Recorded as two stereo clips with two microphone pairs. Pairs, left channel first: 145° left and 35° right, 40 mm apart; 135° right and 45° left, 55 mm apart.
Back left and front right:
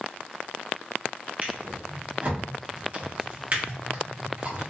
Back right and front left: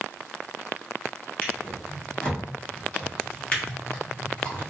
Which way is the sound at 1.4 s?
75° right.